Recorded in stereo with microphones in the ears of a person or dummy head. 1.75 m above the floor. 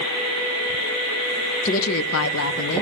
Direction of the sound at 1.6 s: 35° left (ahead or behind).